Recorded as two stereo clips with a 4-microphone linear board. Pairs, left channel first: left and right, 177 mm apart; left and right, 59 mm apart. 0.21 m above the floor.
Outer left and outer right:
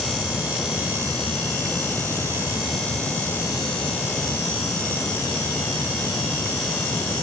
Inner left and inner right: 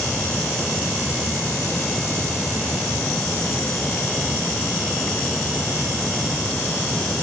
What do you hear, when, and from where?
Only background noise.